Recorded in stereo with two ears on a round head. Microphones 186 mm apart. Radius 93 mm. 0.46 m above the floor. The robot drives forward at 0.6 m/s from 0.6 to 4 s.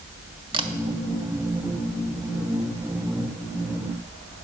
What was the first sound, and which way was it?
A camera shutter, 25° right (ahead or behind).